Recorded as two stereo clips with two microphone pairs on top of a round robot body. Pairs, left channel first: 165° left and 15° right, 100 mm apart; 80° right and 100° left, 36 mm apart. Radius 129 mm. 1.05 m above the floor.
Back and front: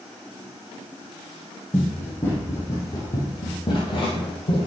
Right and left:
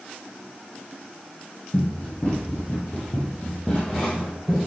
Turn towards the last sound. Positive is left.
turn(degrees=-165)